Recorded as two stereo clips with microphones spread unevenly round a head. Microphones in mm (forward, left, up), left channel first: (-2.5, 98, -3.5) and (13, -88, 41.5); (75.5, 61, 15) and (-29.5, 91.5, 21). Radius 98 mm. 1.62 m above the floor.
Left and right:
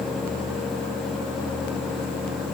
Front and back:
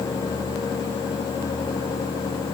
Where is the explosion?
No explosion in this recording.